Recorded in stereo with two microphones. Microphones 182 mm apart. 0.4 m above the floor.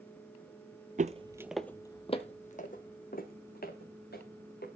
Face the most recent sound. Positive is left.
turn(degrees=60)  # may be behind; listen again after turning